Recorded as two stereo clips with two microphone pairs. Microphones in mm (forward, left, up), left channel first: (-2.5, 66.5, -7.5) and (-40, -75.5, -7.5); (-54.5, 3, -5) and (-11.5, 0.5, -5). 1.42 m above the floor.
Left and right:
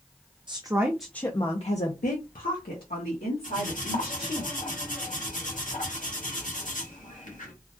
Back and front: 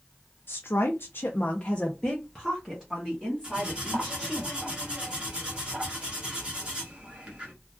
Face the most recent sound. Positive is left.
turn(degrees=60)